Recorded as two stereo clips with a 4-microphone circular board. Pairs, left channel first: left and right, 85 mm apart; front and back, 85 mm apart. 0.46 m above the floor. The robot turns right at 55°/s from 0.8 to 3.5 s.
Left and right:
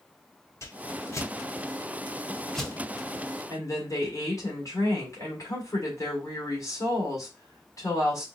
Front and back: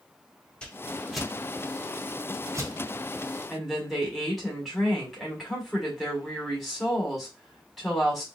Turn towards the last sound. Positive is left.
turn(degrees=90)